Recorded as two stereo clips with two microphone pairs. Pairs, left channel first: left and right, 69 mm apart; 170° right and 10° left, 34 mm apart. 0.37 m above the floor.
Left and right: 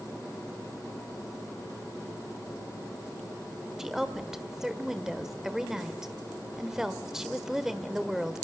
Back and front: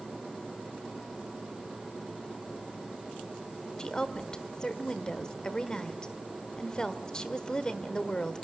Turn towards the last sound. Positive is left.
turn(degrees=-165)